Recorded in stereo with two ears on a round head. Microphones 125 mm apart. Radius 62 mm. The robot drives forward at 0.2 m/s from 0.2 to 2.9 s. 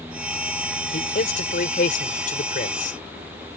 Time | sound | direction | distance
0.9 | a man speaking | 65° left (ahead or behind) | ?